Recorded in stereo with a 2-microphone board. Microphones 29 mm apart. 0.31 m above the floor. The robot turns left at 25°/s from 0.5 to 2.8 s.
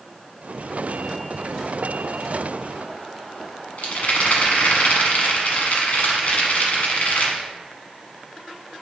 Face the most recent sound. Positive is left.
turn(degrees=65)  # may be behind; listen again after turning